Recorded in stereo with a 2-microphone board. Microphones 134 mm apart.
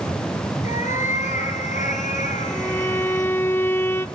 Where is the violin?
15° left (ahead or behind), 0.8 m.